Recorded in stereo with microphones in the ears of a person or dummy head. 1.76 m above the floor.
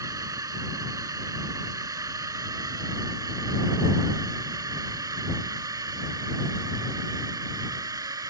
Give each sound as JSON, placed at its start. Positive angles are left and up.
{"t": 0.0, "sound": "a drone", "side_deg": -20}